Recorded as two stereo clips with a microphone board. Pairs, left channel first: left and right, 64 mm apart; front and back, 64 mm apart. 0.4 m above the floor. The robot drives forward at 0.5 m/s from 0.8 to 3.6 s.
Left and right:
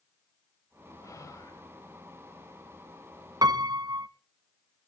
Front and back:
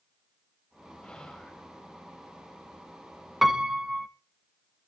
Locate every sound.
1.0 s whispering: 70° left, 1.7 m; by 1.6 s 85° left, 1.7 m
3.4 s a piano: 95° right, 0.7 m; by 4.1 s 100° right, 0.7 m